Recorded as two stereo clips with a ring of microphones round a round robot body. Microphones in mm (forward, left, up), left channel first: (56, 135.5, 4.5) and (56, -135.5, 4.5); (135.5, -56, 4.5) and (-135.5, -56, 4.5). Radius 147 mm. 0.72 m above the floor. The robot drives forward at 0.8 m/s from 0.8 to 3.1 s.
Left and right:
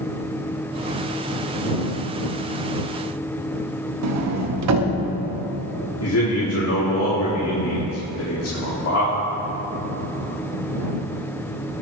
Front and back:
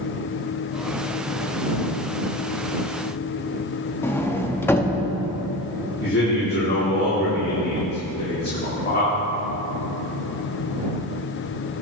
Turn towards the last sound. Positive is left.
turn(degrees=55)